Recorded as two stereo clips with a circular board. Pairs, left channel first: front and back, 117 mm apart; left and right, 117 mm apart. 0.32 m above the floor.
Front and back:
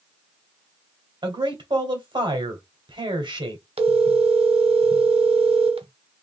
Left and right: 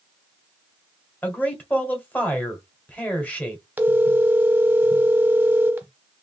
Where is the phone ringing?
160° right, 0.9 m.